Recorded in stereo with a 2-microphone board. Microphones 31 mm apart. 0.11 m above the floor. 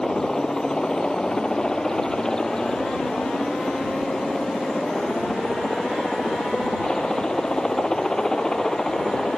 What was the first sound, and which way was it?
A helicopter, 20° left (ahead or behind).